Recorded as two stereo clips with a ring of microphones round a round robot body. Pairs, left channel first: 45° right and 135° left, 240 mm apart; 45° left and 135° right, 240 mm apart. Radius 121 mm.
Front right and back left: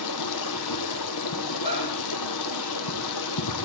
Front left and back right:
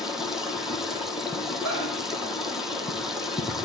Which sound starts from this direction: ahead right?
Running water, at 0.0 s.